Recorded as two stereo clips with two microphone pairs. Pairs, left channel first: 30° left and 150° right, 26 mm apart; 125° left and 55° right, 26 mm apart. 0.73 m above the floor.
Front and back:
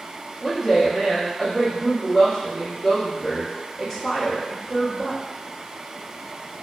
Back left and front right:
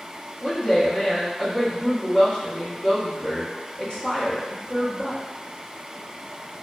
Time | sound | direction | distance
0.4 | a woman speaking | 105° left | 1.0 m